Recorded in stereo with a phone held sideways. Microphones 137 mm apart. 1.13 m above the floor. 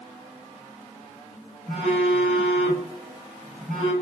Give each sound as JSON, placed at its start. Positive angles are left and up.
{"t": 1.7, "sound": "a phone buzzing", "side_deg": -75, "distance_m": 2.5}